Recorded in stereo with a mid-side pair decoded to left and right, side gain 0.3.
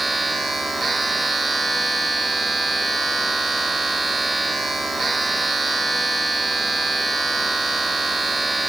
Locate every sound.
0.0 s a machine running: 40° right, 2.5 m